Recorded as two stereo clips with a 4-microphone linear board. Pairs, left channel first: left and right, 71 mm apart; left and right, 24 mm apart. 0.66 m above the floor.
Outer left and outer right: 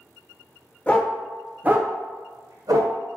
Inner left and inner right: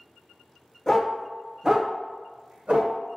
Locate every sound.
0.9 s a dog barking: 20° left (ahead or behind), 0.6 m; by 3.0 s 75° right (ahead or behind), 1.0 m